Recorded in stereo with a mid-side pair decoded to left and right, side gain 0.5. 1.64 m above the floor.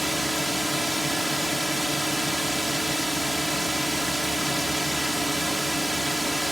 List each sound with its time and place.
0.0 s a drone: 5° right